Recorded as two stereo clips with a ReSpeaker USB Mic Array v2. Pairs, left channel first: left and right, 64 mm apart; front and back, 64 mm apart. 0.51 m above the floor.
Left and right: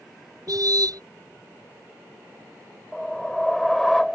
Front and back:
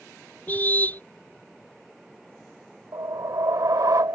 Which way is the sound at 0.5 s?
65° right.